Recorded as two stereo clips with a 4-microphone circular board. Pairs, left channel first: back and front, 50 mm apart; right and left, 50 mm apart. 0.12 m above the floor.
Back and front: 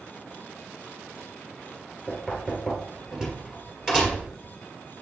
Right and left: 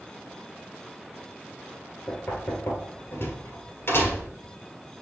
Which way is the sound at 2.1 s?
80° right.